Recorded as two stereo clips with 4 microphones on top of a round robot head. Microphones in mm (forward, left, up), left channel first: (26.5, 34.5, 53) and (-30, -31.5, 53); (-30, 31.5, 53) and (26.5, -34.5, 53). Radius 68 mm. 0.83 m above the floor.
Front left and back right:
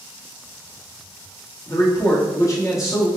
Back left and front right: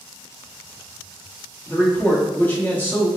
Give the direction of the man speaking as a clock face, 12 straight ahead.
10 o'clock.